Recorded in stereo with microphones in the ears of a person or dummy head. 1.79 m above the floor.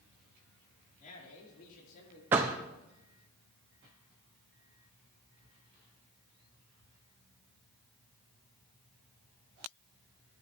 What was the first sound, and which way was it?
A man speaking, 45° left (ahead or behind).